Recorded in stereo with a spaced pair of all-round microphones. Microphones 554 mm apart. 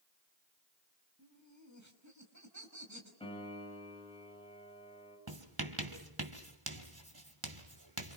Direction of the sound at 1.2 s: 30° right (ahead or behind).